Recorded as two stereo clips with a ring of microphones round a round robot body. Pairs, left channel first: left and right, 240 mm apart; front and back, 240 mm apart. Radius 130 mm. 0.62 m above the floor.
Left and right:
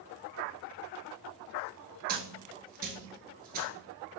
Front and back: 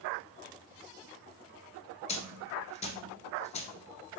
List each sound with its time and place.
2.1 s a dropped coin: 55° right, 0.7 m